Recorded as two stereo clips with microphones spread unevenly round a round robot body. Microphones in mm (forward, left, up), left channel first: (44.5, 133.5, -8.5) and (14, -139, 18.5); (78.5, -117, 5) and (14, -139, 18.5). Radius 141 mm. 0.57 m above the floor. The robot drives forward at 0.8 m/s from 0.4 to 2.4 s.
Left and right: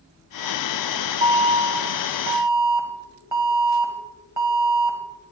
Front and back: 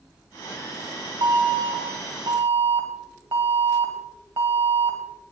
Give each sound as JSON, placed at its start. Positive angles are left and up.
{"t": 1.2, "sound": "an alarm", "azimuth_deg": -165, "distance_m": 0.9}